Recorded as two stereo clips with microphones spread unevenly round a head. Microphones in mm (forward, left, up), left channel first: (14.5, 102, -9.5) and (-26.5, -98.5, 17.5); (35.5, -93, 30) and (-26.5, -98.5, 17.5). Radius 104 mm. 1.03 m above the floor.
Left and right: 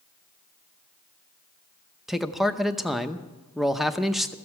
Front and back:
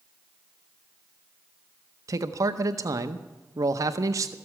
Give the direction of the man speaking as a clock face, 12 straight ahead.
6 o'clock.